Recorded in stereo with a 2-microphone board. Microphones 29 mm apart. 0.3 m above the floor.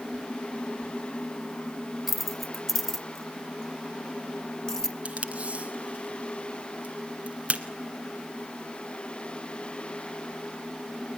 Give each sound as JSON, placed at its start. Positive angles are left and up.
{"t": 2.1, "sound": "keys jangling", "side_deg": -5, "distance_m": 0.7}
{"t": 5.0, "sound": "tape being pulled", "side_deg": -45, "distance_m": 1.8}